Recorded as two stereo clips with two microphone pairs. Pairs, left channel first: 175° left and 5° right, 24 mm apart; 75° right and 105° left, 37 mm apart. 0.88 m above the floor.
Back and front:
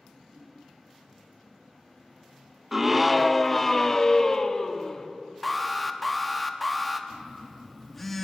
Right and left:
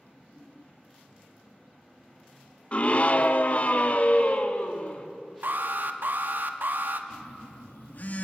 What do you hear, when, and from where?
2.7 s a scream: 75° right, 0.8 m; by 5.1 s 125° right, 1.9 m
5.4 s an alarm: 85° left, 1.3 m
7.1 s a phone buzzing: 105° right, 2.0 m